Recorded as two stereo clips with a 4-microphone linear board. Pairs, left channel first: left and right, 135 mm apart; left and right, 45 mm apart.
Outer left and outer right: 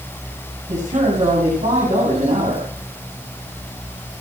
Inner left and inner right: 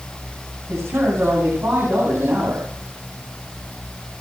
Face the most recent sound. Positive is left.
turn(degrees=-80)